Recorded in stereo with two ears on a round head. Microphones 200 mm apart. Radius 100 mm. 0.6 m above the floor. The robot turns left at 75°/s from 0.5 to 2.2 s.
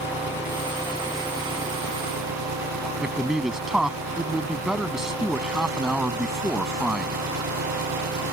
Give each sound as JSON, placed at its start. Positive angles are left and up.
{"t": 0.0, "sound": "an engine running", "azimuth_deg": 50}
{"t": 3.0, "sound": "a man speaking", "side_deg": 0}